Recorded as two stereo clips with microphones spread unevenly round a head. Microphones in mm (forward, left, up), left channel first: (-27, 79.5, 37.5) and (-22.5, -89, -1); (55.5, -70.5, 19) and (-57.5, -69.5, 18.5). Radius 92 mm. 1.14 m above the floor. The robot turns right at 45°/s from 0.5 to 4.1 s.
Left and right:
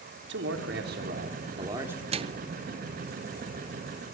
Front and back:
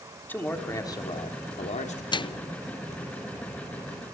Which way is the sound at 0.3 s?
75° right.